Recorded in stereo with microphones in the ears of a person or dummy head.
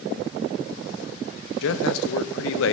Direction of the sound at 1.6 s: 75° left (ahead or behind).